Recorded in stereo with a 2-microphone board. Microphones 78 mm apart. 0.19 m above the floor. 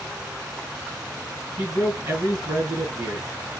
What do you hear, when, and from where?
1.6 s a man speaking: 40° right (ahead or behind), 2 m